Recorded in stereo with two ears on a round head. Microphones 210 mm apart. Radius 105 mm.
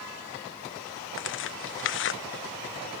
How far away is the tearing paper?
About 0.9 m.